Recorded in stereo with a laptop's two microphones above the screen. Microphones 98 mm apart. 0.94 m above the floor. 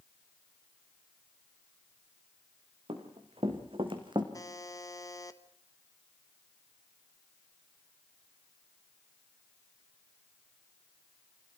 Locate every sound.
2.9 s running footsteps: 75° right (ahead or behind), 4.5 m; by 4.2 s 55° right (ahead or behind), 3.5 m
4.3 s a buzzer: 35° left (ahead or behind), 1.1 m